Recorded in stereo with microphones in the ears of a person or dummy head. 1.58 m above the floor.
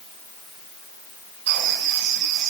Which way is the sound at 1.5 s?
65° right (ahead or behind).